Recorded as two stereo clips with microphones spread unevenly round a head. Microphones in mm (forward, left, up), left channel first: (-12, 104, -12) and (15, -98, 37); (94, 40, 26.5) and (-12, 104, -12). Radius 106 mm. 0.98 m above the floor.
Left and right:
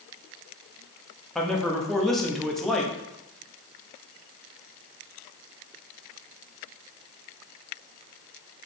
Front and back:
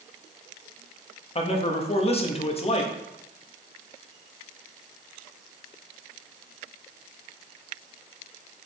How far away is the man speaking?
About 1.2 m.